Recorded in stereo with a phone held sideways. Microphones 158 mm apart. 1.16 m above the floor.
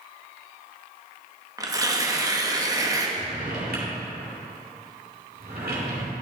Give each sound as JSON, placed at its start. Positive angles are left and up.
{"t": 1.6, "sound": "tearing paper", "side_deg": -20, "distance_m": 0.8}
{"t": 3.2, "sound": "a drawer", "side_deg": -80, "distance_m": 2.0}